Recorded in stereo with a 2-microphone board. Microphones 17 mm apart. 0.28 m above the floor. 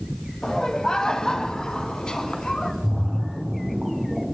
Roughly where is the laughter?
Left.